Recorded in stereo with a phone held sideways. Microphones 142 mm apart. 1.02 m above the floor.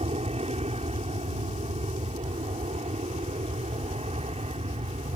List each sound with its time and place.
0.0 s an aircraft: 45° right (ahead or behind)